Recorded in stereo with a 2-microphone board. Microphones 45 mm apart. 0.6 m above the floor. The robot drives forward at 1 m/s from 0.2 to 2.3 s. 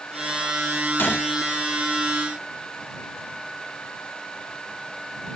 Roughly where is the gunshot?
Left.